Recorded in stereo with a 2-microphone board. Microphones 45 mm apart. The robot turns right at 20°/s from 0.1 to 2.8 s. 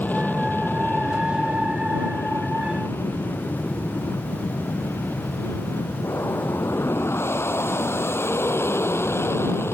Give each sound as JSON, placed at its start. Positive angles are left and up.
{"t": 0.0, "sound": "an aircraft", "azimuth_deg": 45}